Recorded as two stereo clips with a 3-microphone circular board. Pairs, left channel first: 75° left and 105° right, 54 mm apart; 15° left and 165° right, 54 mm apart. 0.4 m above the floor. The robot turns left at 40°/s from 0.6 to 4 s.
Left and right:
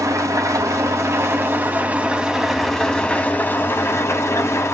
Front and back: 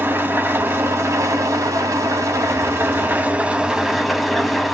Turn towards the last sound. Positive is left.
turn(degrees=110)